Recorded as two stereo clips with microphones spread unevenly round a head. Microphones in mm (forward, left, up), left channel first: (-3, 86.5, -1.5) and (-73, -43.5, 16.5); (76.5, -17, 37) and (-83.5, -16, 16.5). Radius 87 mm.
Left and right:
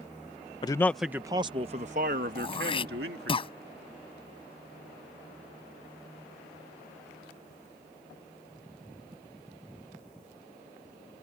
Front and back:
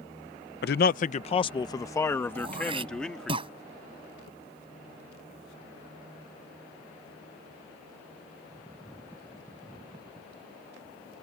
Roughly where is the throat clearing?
Behind left.